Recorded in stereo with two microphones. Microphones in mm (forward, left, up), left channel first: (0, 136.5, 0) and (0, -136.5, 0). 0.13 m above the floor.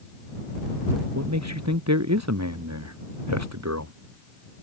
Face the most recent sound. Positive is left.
turn(degrees=-75)  # may be behind; listen again after turning